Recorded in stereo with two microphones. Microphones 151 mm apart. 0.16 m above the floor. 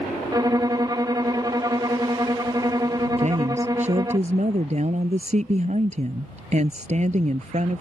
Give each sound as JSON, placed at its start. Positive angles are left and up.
{"t": 0.3, "sound": "a violin", "side_deg": -25}
{"t": 3.2, "sound": "a woman speaking", "side_deg": -50}